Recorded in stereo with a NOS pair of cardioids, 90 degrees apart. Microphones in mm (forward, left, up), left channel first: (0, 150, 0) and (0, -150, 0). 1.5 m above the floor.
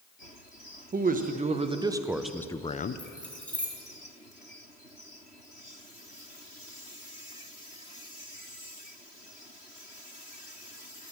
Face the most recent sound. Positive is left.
turn(degrees=5)